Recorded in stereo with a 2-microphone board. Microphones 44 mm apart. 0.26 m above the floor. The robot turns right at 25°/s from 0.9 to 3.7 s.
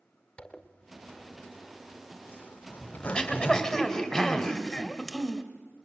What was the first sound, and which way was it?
A zipper, 20° left (ahead or behind).